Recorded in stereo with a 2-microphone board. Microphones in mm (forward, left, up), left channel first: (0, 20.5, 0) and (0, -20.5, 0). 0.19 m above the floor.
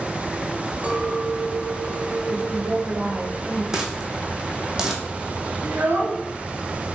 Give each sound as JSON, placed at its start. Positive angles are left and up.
{"t": 0.8, "sound": "a clink", "side_deg": -35, "distance_m": 1.2}
{"t": 2.3, "sound": "a woman speaking", "side_deg": -45, "distance_m": 3.5}
{"t": 3.7, "sound": "a dropped coin", "side_deg": -15, "distance_m": 1.2}
{"t": 5.6, "sound": "a child speaking", "side_deg": -55, "distance_m": 2.0}